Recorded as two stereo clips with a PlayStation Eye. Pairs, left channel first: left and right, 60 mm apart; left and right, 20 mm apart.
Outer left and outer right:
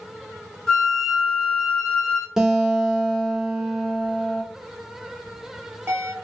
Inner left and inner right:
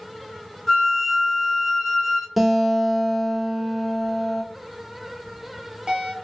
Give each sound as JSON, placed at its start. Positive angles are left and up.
{"t": 0.7, "sound": "a flute", "side_deg": 10, "distance_m": 1.1}
{"t": 2.4, "sound": "a guitar", "side_deg": -5, "distance_m": 0.7}
{"t": 5.2, "sound": "a bell", "side_deg": -50, "distance_m": 1.2}